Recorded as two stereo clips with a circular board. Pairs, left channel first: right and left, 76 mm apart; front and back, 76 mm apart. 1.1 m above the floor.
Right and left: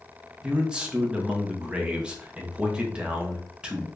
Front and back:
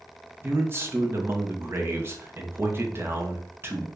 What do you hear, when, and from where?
0.4 s a man speaking: 155° left, 0.7 m